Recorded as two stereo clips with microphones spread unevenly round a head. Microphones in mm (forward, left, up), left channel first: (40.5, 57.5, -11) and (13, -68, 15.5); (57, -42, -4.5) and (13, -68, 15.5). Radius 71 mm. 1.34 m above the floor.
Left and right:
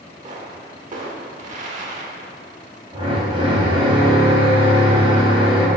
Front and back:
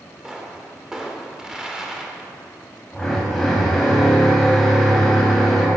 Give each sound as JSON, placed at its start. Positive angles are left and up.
{"t": 0.2, "sound": "a pop", "azimuth_deg": -80, "distance_m": 2.0}
{"t": 2.9, "sound": "a drill", "azimuth_deg": -55, "distance_m": 4.5}